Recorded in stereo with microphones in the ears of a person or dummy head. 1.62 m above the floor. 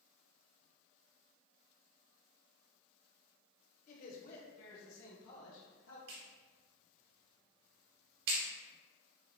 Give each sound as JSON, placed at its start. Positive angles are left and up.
{"t": 3.9, "sound": "a man speaking", "side_deg": 45, "distance_m": 1.7}
{"t": 6.1, "sound": "a clap", "side_deg": -60, "distance_m": 2.0}